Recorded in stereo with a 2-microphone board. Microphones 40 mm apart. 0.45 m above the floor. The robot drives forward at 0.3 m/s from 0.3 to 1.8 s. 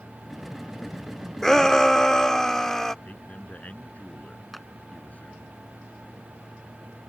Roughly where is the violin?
I don't hear a violin.